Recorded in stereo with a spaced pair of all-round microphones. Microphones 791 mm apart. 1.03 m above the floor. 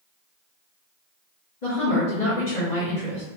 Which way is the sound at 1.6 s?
60° left (ahead or behind).